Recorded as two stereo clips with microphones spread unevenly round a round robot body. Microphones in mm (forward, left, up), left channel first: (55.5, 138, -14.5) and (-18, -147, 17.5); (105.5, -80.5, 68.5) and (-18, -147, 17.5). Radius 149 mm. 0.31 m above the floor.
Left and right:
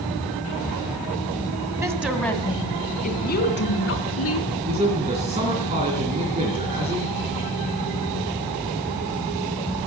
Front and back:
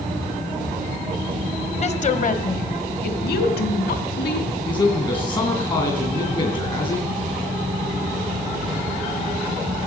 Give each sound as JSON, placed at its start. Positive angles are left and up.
{"t": 1.8, "sound": "a woman speaking", "azimuth_deg": -25, "distance_m": 1.9}
{"t": 4.7, "sound": "a man speaking", "azimuth_deg": -35, "distance_m": 3.0}